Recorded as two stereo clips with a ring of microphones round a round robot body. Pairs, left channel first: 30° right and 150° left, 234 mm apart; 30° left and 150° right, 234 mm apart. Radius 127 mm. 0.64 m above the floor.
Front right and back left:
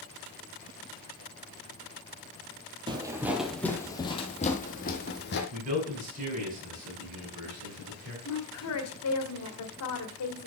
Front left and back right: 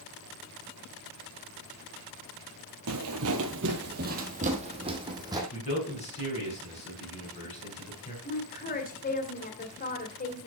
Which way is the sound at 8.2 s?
25° right.